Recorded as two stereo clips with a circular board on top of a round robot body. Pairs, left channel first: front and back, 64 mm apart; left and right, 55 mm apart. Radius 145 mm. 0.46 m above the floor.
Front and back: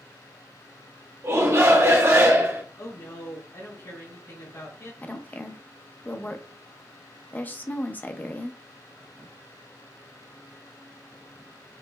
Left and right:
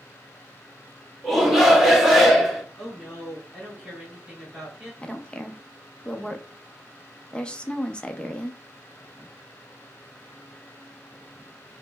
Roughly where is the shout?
Behind.